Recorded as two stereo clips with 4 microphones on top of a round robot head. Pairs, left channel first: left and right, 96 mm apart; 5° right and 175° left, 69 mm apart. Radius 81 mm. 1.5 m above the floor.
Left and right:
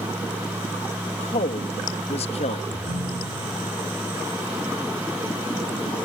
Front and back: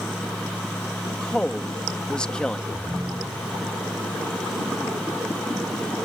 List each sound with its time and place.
1.1 s a woman speaking: 75° left
2.7 s a ringtone: 115° right